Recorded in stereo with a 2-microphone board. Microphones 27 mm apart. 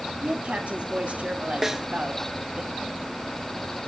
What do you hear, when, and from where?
0.2 s a woman speaking: 55° right (ahead or behind), 5 m
1.6 s a snare drum: 10° right (ahead or behind), 0.8 m